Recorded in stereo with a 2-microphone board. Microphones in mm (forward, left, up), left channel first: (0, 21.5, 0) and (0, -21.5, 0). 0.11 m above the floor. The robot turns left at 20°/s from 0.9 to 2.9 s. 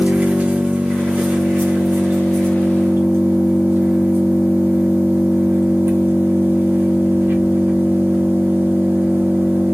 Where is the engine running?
35° right, 1.1 m; by 9.7 s 75° right, 1.1 m.